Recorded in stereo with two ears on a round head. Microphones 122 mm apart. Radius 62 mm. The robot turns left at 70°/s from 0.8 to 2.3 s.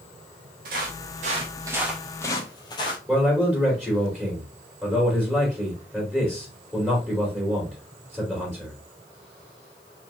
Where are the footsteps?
65° right (ahead or behind), 2 m; by 3.0 s 35° left (ahead or behind), 1.6 m.